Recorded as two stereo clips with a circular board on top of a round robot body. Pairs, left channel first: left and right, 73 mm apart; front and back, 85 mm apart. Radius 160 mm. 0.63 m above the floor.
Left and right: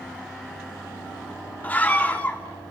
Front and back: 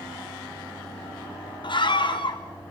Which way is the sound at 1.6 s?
20° left.